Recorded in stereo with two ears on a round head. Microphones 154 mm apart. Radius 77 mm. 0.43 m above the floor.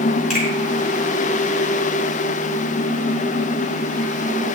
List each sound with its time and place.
0.3 s a finger snap: centre (ahead or behind), 5.5 m